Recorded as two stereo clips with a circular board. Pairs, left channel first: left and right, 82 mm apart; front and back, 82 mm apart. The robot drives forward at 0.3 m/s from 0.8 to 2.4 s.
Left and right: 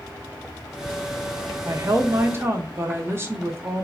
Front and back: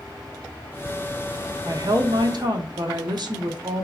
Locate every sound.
1.6 s a woman speaking: 140° right, 0.6 m; by 3.8 s 150° right, 0.8 m